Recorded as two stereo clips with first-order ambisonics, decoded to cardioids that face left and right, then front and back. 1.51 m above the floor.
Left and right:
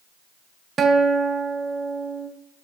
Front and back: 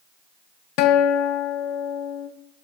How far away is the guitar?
About 0.6 m.